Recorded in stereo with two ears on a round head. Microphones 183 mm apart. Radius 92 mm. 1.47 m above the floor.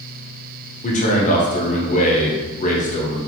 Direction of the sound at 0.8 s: 40° left (ahead or behind).